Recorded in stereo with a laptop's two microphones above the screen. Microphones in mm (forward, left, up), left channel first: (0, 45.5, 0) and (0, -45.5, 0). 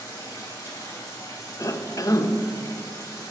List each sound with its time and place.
0.0 s running water: 35° left (ahead or behind), 2.5 m
1.6 s a cough: 40° left (ahead or behind), 0.7 m